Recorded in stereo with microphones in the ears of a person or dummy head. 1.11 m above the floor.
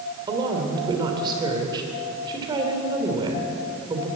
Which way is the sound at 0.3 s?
25° right (ahead or behind).